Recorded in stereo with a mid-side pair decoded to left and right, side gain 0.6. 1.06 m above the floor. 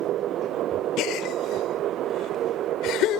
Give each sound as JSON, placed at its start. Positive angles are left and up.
{"t": 1.0, "sound": "a gasp", "azimuth_deg": 70}